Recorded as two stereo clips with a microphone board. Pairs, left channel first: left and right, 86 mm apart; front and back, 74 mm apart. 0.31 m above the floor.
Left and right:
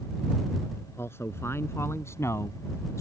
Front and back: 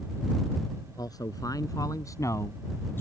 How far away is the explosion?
I don't hear an explosion.